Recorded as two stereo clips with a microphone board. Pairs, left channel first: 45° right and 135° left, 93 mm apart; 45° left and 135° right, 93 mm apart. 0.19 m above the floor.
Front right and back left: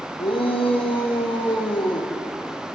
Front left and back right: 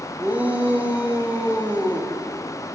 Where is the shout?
60° right, 6 m.